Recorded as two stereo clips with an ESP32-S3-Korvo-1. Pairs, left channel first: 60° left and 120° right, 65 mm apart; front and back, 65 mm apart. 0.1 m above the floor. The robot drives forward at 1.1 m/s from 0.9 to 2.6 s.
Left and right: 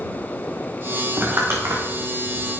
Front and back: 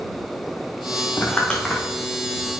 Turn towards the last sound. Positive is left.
turn(degrees=-110)